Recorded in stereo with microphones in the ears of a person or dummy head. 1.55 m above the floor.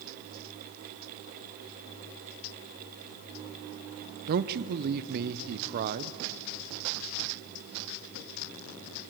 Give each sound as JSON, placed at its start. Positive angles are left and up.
{"t": 4.3, "sound": "a man speaking", "side_deg": -50, "distance_m": 0.7}